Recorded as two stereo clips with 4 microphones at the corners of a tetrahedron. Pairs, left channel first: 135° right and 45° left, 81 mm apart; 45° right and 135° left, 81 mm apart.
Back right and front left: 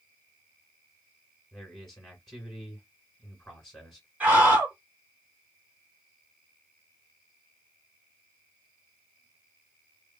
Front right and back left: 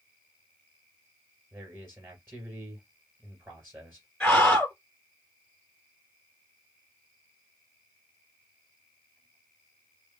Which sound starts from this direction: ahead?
A scream, at 4.2 s.